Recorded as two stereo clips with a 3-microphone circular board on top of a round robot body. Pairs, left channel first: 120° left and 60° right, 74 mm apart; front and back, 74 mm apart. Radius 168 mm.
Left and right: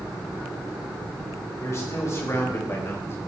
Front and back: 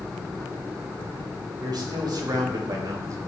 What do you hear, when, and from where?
1.6 s a man speaking: 170° left, 3.5 m; by 3.3 s 160° left, 2 m